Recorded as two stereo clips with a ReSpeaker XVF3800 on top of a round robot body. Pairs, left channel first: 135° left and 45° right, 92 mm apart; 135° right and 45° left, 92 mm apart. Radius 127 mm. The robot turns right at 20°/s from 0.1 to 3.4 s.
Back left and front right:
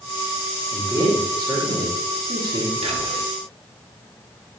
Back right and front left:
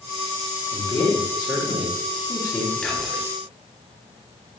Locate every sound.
0.7 s a man speaking: 95° right, 1.4 m; by 2.7 s 55° right, 1.4 m
2.8 s whispering: 55° right, 0.8 m; by 3.3 s 45° right, 0.8 m